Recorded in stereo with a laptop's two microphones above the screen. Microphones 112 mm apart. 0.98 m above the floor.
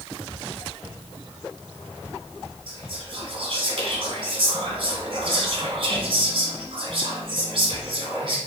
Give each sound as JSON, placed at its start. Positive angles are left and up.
{"t": 2.7, "sound": "whispering", "side_deg": -50, "distance_m": 1.0}